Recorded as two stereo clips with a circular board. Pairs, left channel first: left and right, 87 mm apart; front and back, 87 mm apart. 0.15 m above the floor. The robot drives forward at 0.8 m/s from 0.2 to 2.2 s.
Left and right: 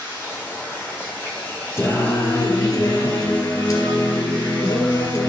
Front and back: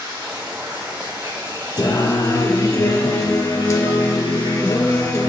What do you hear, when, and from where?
0.0 s running water: 145° left, 3 m; by 5.3 s 155° left, 4.5 m
1.8 s singing: 35° left, 1.0 m; by 5.3 s 50° left, 0.8 m